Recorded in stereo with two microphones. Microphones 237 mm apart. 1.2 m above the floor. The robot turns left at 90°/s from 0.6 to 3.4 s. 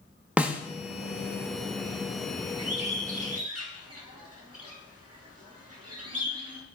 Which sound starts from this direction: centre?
A snare drum, at 0.4 s.